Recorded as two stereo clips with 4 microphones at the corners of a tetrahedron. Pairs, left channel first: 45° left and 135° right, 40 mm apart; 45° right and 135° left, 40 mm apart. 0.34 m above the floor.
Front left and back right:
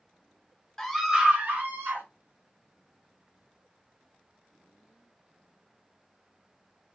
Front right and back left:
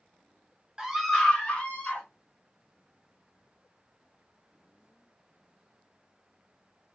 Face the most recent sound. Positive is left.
turn(degrees=-105)